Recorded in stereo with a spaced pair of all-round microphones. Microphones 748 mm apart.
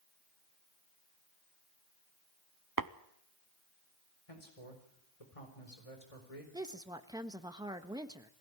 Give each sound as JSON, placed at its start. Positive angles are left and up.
{"t": 2.8, "sound": "tapping", "side_deg": -30, "distance_m": 0.7}
{"t": 4.3, "sound": "a man speaking", "side_deg": 50, "distance_m": 4.5}
{"t": 6.5, "sound": "a woman speaking", "side_deg": -5, "distance_m": 1.3}